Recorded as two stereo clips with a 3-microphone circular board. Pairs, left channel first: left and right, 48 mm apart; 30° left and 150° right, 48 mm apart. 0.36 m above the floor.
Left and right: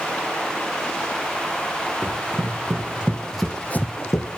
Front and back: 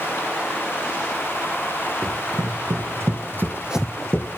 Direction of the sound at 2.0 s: 140° right.